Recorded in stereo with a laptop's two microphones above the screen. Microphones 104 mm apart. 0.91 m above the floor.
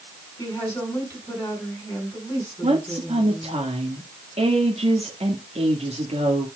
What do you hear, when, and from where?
0.4 s a woman speaking: 25° left (ahead or behind), 7 m
2.6 s a woman speaking: 70° right (ahead or behind), 1.6 m